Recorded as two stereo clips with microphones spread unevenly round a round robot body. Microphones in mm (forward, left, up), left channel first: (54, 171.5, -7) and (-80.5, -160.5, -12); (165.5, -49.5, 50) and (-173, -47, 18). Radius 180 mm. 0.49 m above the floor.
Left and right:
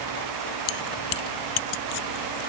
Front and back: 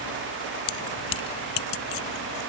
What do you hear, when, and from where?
0.7 s keys jangling: 30° left; by 2.4 s 40° left